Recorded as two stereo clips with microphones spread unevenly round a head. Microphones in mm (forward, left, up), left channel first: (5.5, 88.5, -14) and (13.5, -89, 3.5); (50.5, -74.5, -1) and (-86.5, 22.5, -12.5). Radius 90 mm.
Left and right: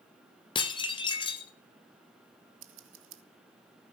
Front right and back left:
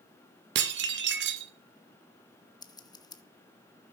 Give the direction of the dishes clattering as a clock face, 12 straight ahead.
7 o'clock.